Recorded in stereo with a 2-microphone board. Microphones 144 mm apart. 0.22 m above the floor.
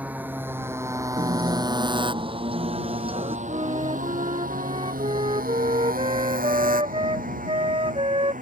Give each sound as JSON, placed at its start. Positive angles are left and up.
{"t": 0.0, "sound": "a motorcycle", "side_deg": -10}
{"t": 1.2, "sound": "a guitar", "side_deg": -40}
{"t": 3.5, "sound": "a flute", "side_deg": -40}